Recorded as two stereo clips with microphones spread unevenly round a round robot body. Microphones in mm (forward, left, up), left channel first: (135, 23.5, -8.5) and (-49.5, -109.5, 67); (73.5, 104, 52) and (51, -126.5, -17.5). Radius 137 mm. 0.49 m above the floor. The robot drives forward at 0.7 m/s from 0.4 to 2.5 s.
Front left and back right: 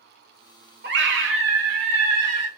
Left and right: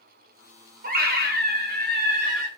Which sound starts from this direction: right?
A scream, at 0.8 s.